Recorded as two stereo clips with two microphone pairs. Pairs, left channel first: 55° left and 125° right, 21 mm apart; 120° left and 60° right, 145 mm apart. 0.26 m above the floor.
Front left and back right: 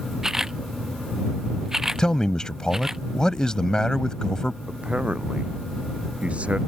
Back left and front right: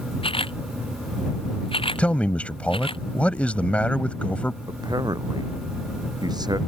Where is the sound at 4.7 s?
120° right.